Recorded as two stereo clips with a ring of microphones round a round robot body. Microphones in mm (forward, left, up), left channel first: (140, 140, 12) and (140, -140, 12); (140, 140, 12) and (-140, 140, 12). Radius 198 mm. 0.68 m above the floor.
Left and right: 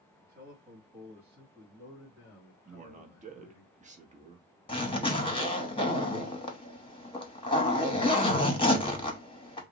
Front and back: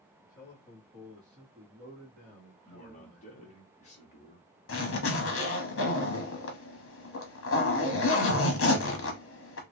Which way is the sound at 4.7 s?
20° left.